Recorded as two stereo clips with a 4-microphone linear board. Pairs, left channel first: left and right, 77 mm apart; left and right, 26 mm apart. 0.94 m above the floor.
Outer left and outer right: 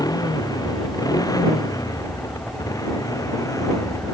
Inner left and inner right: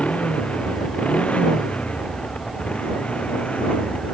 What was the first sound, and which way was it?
A motorcycle, 50° left (ahead or behind).